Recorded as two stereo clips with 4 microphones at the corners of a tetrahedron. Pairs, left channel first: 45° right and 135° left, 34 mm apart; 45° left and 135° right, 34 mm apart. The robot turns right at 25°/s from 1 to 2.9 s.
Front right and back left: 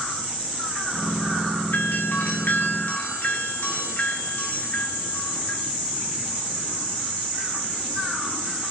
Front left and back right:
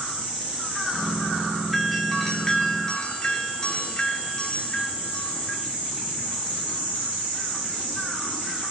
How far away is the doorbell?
About 2.5 m.